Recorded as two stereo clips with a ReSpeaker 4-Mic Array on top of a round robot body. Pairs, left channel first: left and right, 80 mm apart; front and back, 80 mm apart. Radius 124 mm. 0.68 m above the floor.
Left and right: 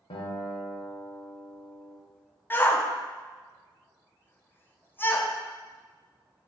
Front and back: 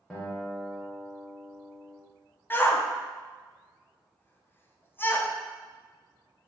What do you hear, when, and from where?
0.1 s a guitar: 80° left, 0.8 m
2.5 s a shout: 45° left, 0.7 m